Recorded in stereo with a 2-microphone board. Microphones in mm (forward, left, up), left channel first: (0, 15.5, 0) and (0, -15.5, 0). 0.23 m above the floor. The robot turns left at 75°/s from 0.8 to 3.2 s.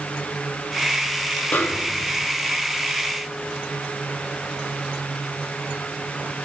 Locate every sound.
1.5 s a snare drum: 100° left, 0.6 m; by 2.3 s 40° left, 0.6 m